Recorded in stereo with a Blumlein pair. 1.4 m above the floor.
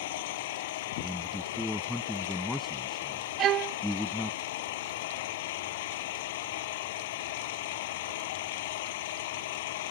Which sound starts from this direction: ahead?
A man speaking, at 1.0 s.